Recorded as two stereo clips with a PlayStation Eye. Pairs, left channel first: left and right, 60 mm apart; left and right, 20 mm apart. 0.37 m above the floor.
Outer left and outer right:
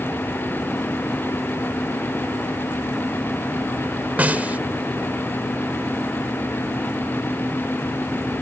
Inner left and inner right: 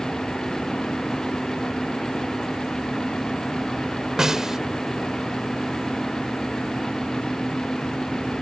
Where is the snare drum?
30° right (ahead or behind).